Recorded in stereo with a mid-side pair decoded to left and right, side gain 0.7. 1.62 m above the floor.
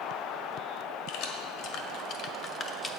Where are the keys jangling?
70° left, 1.8 m; by 3.0 s 10° left, 0.9 m.